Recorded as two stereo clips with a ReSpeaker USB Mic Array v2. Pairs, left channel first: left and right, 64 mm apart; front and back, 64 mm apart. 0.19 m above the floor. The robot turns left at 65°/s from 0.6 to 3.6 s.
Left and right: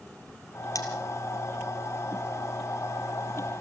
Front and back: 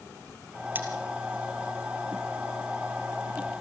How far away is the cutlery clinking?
About 3 m.